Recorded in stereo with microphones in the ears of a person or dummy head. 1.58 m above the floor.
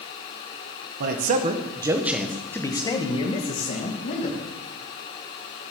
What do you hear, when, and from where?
1.0 s a man speaking: 55° right (ahead or behind), 1.1 m; by 4.4 s 45° left (ahead or behind), 2 m